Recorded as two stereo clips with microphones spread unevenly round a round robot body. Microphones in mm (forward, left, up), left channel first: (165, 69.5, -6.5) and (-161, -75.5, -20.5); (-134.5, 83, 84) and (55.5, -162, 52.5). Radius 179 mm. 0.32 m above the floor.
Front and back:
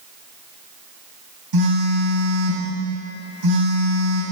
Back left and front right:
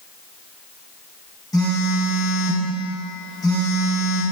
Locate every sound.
1.5 s a phone buzzing: 150° right, 2.5 m